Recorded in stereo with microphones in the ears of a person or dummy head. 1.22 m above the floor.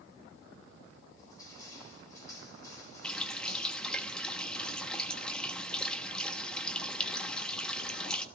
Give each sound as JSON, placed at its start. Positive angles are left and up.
{"t": 1.2, "sound": "crushing", "side_deg": 25, "distance_m": 6.0}
{"t": 3.0, "sound": "a running tap", "side_deg": 10, "distance_m": 1.2}